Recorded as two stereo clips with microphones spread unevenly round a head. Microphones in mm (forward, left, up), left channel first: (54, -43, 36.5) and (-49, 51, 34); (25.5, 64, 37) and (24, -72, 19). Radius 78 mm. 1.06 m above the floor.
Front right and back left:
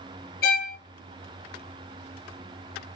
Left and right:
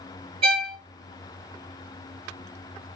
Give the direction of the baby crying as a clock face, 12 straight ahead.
I don't hear a baby crying.